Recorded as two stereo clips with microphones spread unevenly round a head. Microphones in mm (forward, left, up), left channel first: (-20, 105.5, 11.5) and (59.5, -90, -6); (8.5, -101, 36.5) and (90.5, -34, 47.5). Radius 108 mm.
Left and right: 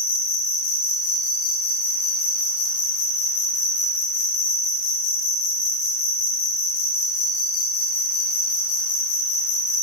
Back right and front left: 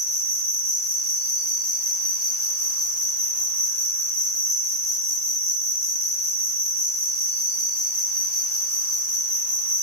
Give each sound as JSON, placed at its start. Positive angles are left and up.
{"t": 0.0, "sound": "an insect", "azimuth_deg": 140, "distance_m": 0.9}